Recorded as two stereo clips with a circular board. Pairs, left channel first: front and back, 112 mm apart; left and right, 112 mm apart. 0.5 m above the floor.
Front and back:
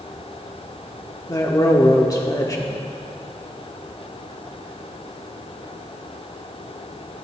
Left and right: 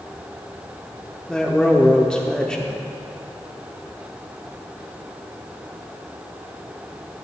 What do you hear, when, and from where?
1.3 s a man speaking: 15° left, 1.1 m